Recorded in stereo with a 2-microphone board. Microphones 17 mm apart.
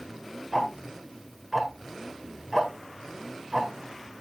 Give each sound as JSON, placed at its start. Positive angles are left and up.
{"t": 0.5, "sound": "ticking", "side_deg": -25, "distance_m": 2.0}